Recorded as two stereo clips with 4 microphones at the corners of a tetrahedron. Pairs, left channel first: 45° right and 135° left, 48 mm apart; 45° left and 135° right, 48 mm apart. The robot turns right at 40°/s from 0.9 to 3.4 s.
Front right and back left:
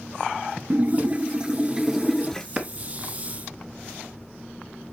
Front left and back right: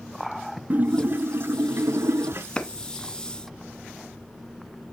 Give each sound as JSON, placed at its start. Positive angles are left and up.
{"t": 0.7, "sound": "a splash", "azimuth_deg": 180, "distance_m": 0.5}
{"t": 2.6, "sound": "a clap", "azimuth_deg": 90, "distance_m": 1.1}